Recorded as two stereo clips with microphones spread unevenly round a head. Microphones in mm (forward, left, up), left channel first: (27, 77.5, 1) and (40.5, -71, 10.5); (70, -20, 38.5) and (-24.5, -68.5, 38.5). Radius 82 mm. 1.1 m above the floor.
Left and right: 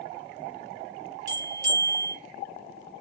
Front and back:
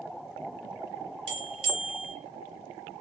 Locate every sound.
1.3 s a bell: 140° right, 1.4 m